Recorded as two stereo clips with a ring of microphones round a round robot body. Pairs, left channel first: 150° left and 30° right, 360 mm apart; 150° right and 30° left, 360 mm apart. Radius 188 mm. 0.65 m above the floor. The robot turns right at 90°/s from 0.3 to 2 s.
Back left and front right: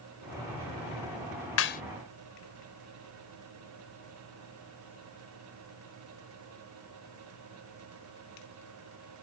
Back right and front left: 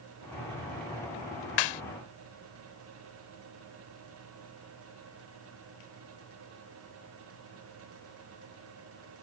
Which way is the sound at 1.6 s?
160° right.